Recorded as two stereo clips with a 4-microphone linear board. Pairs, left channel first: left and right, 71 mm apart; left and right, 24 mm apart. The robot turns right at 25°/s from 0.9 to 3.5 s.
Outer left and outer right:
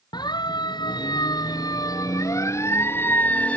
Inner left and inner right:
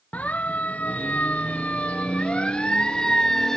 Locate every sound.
0.1 s a siren: 75° left (ahead or behind); by 3.6 s 20° left (ahead or behind)